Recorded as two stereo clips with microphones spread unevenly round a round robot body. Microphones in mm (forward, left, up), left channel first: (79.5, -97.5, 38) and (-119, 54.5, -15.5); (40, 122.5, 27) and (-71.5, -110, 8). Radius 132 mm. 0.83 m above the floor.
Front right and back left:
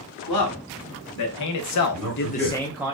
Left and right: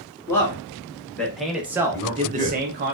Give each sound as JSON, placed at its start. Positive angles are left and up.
{"t": 0.3, "sound": "a man speaking", "azimuth_deg": -15, "distance_m": 1.4}
{"t": 1.9, "sound": "a man speaking", "azimuth_deg": -20, "distance_m": 2.0}